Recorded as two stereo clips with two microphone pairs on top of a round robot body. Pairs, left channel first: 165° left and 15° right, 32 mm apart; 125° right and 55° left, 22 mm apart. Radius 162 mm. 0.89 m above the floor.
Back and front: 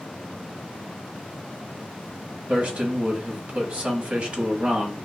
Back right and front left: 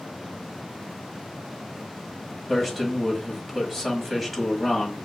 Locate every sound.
2.5 s a man speaking: 45° right, 1.7 m